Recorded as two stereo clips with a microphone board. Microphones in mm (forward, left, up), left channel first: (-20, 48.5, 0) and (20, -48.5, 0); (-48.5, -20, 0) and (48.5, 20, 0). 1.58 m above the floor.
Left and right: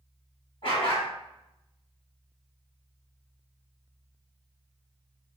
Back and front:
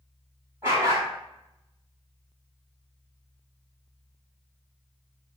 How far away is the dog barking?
About 4.5 m.